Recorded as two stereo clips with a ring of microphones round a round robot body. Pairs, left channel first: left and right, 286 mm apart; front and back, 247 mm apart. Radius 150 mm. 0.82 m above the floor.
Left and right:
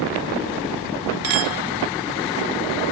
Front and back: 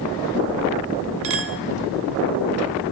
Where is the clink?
135° right, 1.1 m.